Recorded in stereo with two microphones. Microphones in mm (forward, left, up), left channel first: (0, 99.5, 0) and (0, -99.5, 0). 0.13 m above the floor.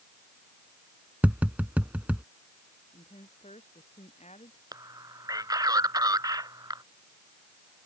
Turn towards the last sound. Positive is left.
turn(degrees=-20)  # may be behind; listen again after turning